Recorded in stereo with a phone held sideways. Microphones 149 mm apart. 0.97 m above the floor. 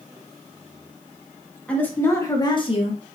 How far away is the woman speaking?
About 1.3 m.